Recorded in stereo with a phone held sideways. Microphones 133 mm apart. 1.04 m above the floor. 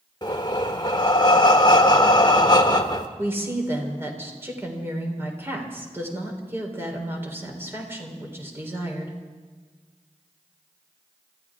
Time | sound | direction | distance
0.2 | breathing | 30° left (ahead or behind) | 1.2 m
3.2 | a woman speaking | 15° right (ahead or behind) | 3.5 m